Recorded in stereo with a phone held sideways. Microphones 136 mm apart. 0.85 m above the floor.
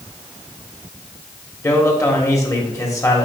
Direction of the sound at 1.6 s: 20° left (ahead or behind).